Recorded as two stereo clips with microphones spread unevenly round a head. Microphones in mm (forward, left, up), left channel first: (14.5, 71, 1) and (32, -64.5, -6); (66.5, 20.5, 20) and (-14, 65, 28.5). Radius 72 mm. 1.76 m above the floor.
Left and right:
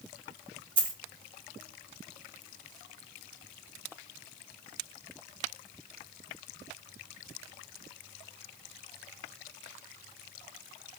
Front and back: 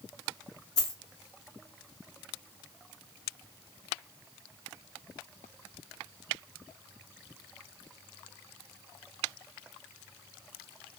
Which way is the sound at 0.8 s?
65° right.